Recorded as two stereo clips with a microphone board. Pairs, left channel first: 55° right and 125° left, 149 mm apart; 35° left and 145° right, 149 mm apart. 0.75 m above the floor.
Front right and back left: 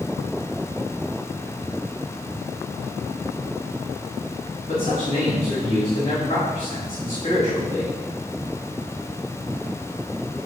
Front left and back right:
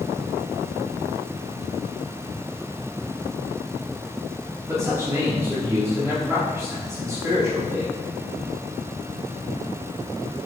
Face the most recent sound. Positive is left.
turn(degrees=-75)